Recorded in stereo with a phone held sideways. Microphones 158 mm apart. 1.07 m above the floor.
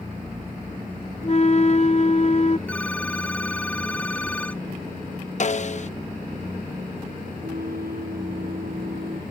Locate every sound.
1.2 s a flute: 45° left (ahead or behind)
2.7 s a phone ringing: 10° left (ahead or behind)
5.4 s a snare drum: 50° left (ahead or behind)
7.4 s a flute: 80° right